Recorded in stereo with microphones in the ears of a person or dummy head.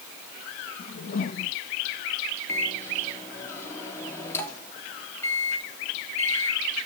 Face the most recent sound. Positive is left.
turn(degrees=10)  # may be behind; listen again after turning